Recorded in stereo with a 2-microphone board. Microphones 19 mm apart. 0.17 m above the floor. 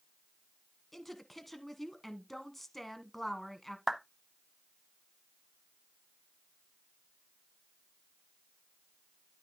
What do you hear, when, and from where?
0.9 s a woman speaking: 10° left (ahead or behind), 1.2 m
3.9 s a clap: 15° right (ahead or behind), 0.8 m